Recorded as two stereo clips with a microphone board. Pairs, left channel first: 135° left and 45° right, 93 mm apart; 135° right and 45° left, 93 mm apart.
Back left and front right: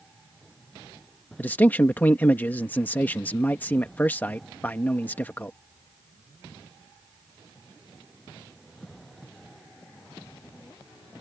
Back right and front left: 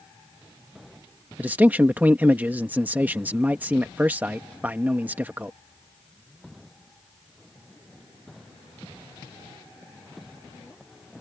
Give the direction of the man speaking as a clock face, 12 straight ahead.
9 o'clock.